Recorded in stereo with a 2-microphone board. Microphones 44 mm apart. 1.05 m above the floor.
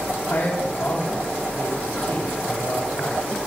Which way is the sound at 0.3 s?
70° left (ahead or behind).